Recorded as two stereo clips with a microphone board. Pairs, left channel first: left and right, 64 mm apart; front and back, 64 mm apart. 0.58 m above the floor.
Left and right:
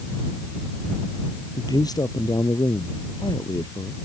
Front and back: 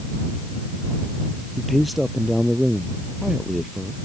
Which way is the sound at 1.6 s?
90° left.